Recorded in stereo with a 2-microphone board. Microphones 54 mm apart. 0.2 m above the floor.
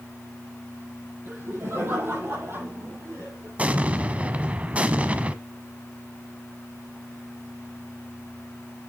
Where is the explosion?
25° right (ahead or behind), 0.7 m.